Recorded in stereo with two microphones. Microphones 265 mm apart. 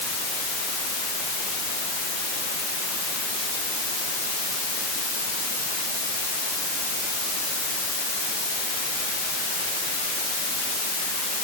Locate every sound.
Only background noise.